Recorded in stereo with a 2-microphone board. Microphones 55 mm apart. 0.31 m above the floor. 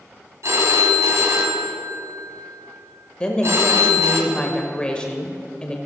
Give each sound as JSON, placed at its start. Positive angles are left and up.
{"t": 0.4, "sound": "a phone ringing", "side_deg": -60, "distance_m": 1.6}
{"t": 3.2, "sound": "a woman speaking", "side_deg": 20, "distance_m": 0.8}